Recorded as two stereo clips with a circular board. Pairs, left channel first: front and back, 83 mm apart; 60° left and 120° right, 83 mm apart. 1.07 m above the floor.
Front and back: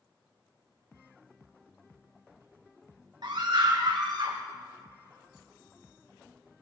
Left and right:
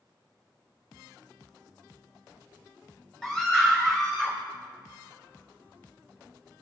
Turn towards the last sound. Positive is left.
turn(degrees=145)